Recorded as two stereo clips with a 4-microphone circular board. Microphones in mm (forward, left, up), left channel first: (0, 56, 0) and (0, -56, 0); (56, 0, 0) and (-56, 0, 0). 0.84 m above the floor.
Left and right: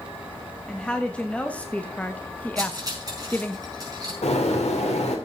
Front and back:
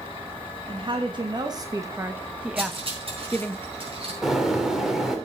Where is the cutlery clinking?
145° right, 5 m.